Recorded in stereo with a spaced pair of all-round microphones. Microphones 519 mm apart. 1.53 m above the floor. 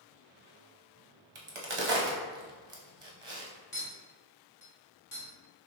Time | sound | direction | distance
1.4 | a crack | 60° right (ahead or behind) | 0.9 m
3.7 | a clink | 35° left (ahead or behind) | 1.4 m